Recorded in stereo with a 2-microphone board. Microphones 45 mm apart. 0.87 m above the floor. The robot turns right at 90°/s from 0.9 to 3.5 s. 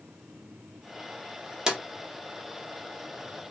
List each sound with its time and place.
1.7 s a drawer: 15° right (ahead or behind), 0.6 m; by 1.8 s 5° right (ahead or behind), 0.6 m